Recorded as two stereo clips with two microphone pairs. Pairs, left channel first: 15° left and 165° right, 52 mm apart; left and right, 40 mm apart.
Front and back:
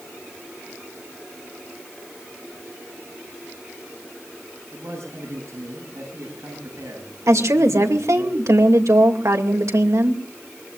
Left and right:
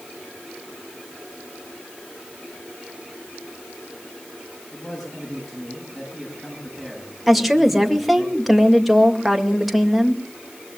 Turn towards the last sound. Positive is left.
turn(degrees=-175)